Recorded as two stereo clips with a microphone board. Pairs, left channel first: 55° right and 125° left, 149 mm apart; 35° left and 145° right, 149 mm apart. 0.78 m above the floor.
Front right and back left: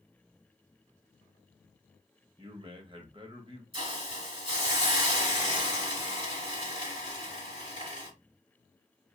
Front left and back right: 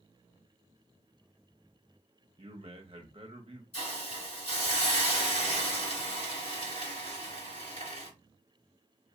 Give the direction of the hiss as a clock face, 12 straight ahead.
9 o'clock.